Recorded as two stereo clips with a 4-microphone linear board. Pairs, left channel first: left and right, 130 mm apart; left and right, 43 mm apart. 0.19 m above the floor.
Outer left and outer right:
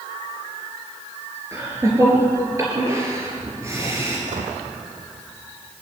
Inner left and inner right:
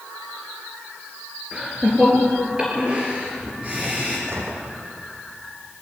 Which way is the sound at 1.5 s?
25° right (ahead or behind).